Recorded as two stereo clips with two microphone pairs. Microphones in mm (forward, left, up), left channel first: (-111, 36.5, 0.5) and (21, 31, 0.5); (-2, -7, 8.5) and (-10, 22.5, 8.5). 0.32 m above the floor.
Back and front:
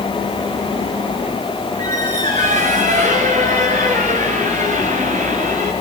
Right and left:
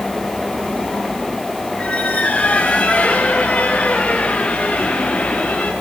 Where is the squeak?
15° right, 6 m.